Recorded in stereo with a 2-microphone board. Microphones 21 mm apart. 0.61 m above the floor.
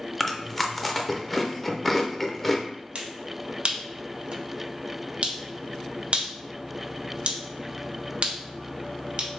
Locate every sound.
0.2 s chewing: 10° left (ahead or behind), 0.5 m
3.0 s a finger snap: 55° right (ahead or behind), 0.7 m